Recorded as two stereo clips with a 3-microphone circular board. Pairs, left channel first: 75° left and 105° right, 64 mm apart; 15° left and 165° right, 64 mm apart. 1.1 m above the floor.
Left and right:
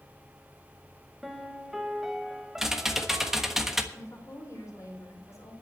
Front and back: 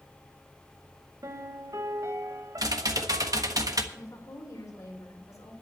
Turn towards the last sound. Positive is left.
turn(degrees=40)